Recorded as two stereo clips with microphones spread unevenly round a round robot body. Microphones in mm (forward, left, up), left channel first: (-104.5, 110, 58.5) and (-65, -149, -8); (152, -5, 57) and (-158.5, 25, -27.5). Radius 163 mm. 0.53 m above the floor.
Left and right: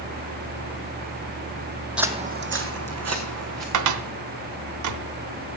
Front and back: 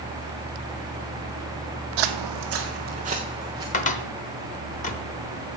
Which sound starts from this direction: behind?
Footsteps, at 2.0 s.